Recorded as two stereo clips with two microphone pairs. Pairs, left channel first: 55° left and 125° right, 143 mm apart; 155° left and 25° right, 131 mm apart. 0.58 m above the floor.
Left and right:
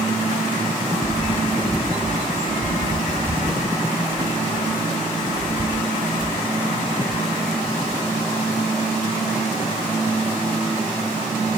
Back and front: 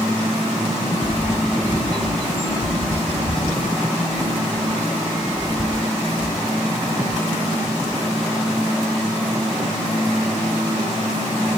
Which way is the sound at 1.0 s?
115° left.